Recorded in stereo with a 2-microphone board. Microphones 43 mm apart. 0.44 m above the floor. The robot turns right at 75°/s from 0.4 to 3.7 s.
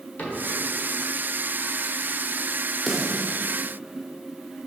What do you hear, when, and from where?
0.2 s a cupboard door: 40° left (ahead or behind), 1.3 m; by 0.4 s 35° left (ahead or behind), 1.3 m
2.9 s a snare drum: 5° right (ahead or behind), 1.0 m; by 3.4 s 30° right (ahead or behind), 1.0 m